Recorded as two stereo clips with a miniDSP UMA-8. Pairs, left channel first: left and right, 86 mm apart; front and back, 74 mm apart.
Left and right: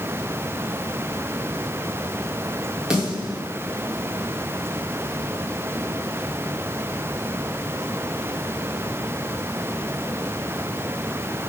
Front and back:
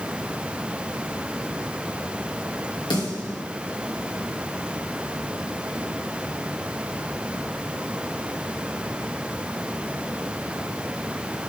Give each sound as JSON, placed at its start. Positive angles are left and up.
{"t": 2.9, "sound": "a snare drum", "azimuth_deg": -10, "distance_m": 2.5}